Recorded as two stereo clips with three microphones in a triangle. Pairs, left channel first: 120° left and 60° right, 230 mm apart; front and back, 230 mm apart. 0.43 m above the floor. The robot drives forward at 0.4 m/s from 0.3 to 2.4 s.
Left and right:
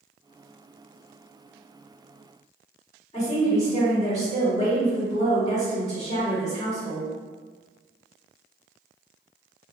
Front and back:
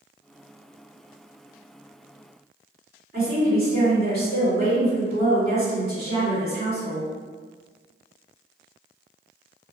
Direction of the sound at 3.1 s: 170° left.